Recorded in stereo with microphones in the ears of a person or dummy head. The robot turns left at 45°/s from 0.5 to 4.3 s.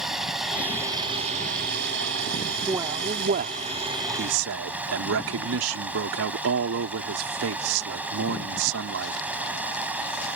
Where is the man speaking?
15° right; by 9.3 s 90° right.